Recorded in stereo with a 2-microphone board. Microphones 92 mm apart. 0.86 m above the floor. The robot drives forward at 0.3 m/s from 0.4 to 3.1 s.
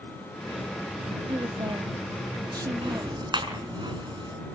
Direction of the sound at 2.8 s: 60° right (ahead or behind).